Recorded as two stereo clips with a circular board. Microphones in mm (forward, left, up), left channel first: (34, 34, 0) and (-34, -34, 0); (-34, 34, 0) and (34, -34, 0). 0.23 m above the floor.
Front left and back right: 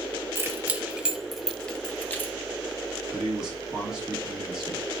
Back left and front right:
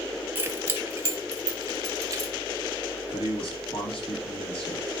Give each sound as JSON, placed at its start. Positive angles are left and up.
{"t": 0.3, "sound": "keys jangling", "azimuth_deg": -95, "distance_m": 1.1}
{"t": 3.1, "sound": "a man speaking", "azimuth_deg": 140, "distance_m": 5.5}